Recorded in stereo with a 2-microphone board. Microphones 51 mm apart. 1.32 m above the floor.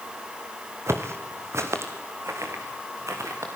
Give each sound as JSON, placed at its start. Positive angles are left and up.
{"t": 0.9, "sound": "footsteps", "side_deg": -60, "distance_m": 2.5}